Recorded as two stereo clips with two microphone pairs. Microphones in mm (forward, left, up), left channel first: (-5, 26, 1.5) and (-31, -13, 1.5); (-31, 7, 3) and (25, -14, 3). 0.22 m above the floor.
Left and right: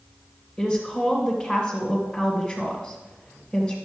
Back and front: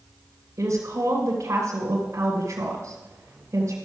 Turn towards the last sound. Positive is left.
turn(degrees=-10)